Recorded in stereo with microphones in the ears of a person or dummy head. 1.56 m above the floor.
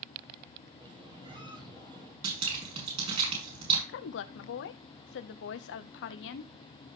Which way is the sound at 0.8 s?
25° right (ahead or behind).